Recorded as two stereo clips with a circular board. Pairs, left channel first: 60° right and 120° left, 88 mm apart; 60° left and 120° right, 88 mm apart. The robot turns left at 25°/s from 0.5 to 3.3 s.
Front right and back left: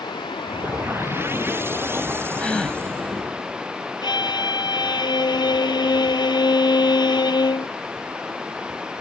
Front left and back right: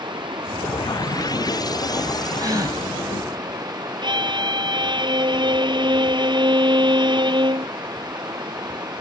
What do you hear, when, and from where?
0.0 s running water: 90° right; by 9.0 s 160° right
2.4 s a gasp: 130° right; by 2.8 s 140° right
4.0 s a violin: 90° right